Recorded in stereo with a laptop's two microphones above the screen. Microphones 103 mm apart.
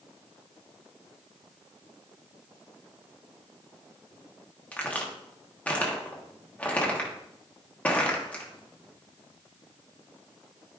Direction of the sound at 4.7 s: 15° left (ahead or behind).